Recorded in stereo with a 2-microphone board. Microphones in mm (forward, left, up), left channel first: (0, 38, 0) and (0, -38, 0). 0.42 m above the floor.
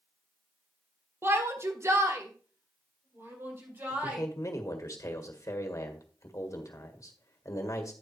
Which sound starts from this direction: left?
A man speaking, at 3.9 s.